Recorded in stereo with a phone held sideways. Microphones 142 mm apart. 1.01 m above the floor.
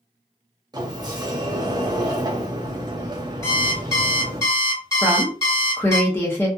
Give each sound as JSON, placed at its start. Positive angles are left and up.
{"t": 0.7, "sound": "a sliding door", "side_deg": -30, "distance_m": 0.6}
{"t": 3.4, "sound": "an alarm clock", "side_deg": 20, "distance_m": 1.2}
{"t": 5.0, "sound": "a woman speaking", "side_deg": 20, "distance_m": 0.7}